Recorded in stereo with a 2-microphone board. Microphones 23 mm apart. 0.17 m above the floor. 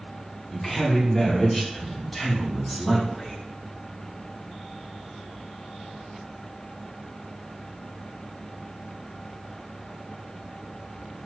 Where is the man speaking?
10° left (ahead or behind), 2 m; by 3.4 s 20° right (ahead or behind), 1.7 m.